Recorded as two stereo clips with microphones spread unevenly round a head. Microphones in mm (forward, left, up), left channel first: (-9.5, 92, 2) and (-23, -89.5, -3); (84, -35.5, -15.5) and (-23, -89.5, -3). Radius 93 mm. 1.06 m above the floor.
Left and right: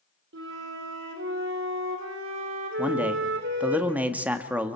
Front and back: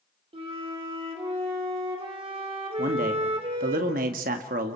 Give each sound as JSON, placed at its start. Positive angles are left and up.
{"t": 0.3, "sound": "a flute", "azimuth_deg": -110, "distance_m": 3.5}
{"t": 2.8, "sound": "a man speaking", "azimuth_deg": -175, "distance_m": 1.6}